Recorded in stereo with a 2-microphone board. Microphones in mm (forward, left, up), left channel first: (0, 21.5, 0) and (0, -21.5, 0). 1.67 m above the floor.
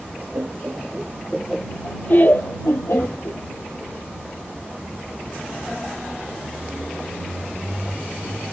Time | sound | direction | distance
0.3 | laughter | 55° right (ahead or behind) | ?